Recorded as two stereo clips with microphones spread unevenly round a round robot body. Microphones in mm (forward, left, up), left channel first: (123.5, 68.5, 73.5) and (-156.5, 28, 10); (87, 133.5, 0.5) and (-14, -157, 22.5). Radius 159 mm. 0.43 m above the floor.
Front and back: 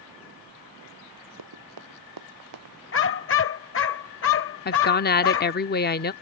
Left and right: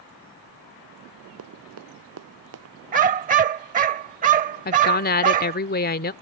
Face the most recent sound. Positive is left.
turn(degrees=60)